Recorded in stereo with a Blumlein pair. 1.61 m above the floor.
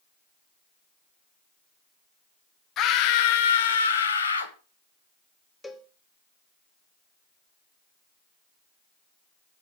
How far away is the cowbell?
About 1.0 m.